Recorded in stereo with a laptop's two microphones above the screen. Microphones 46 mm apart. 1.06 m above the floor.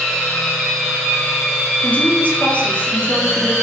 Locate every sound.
0.0 s a machine running: 5° right (ahead or behind), 4 m
1.8 s a woman speaking: 35° left (ahead or behind), 2 m